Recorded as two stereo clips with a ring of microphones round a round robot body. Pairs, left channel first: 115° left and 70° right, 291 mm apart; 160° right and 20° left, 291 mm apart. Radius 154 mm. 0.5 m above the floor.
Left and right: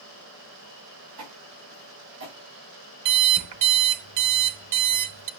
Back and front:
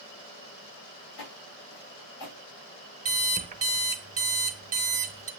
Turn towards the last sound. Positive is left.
turn(degrees=-45)